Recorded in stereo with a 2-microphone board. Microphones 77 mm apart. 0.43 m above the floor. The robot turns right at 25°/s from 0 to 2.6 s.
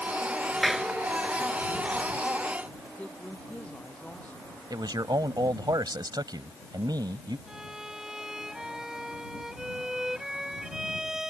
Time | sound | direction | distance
0.6 | a clap | centre (ahead or behind) | ?
3.0 | a woman speaking | 15° left (ahead or behind) | ?
4.7 | a man speaking | 65° right (ahead or behind) | ?
7.5 | a violin | 5° right (ahead or behind) | ?